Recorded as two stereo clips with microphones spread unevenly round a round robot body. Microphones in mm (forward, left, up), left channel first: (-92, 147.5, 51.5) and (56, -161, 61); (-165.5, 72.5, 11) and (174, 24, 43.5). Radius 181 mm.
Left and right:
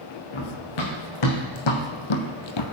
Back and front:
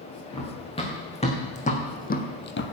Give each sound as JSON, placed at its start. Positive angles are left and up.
{"t": 0.3, "sound": "running footsteps", "azimuth_deg": 95, "distance_m": 3.5}